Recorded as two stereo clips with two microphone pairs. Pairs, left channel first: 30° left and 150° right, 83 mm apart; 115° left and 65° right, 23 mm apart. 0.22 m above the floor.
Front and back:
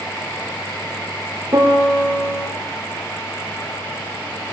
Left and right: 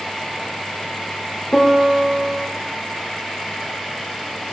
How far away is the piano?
About 5 m.